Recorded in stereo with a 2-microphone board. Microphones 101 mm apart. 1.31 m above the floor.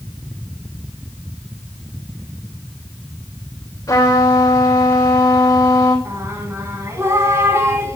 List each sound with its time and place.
3.9 s a trumpet: 35° left (ahead or behind), 3.5 m
6.0 s singing: 25° right (ahead or behind), 1.9 m